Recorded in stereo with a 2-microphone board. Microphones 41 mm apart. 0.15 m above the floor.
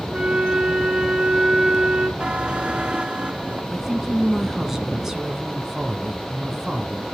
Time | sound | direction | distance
0.1 | a flute | 20° right (ahead or behind) | 0.9 m
2.2 | a buzzer | 25° right (ahead or behind) | 0.7 m
3.7 | a woman speaking | 10° right (ahead or behind) | 1.1 m